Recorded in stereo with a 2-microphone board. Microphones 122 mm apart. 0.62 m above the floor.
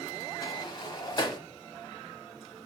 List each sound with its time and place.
0.4 s a sliding door: 35° left (ahead or behind), 0.8 m